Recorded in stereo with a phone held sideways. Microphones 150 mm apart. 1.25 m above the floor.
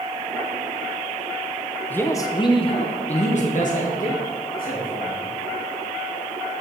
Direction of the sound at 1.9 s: 10° left (ahead or behind).